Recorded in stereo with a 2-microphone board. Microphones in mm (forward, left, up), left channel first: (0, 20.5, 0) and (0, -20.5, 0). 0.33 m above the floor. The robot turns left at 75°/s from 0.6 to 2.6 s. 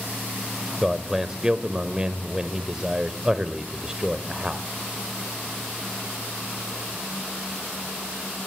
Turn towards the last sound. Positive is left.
turn(degrees=-15)  # may be behind; listen again after turning